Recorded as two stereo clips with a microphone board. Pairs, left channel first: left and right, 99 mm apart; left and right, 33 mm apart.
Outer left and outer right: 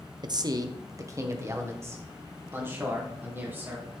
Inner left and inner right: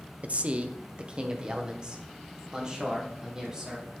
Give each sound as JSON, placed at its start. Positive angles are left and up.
{"t": 0.2, "sound": "a man speaking", "side_deg": -45, "distance_m": 0.6}